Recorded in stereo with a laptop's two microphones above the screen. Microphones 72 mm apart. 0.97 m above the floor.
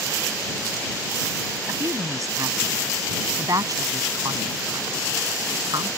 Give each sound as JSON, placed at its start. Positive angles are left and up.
{"t": 1.7, "sound": "a woman speaking", "side_deg": -45}